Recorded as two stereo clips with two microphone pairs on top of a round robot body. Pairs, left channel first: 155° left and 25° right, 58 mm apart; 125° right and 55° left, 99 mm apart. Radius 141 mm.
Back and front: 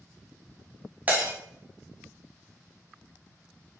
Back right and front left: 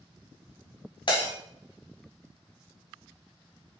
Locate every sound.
1.1 s breaking glass: 90° right, 1.7 m